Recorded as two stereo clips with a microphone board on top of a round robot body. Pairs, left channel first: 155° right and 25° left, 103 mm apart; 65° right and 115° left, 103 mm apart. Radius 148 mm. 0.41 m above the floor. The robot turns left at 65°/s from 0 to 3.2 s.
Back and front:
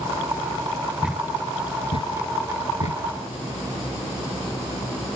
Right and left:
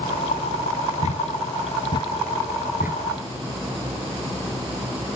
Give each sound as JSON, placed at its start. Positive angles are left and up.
{"t": 1.0, "sound": "a thud", "azimuth_deg": -55}